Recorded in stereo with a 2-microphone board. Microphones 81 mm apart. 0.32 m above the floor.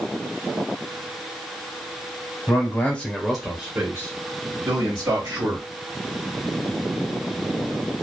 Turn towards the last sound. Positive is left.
turn(degrees=-55)  # may be behind; listen again after turning